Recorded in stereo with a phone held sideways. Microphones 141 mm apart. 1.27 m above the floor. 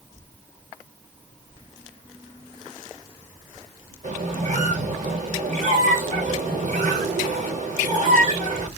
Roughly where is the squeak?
Right.